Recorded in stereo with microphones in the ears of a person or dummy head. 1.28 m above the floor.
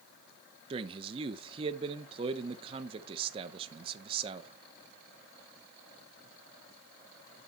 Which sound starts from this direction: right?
A man speaking, at 0.7 s.